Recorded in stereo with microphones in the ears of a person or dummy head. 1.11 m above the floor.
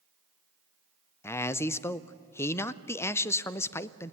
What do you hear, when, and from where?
1.2 s a man speaking: 15° left (ahead or behind), 0.6 m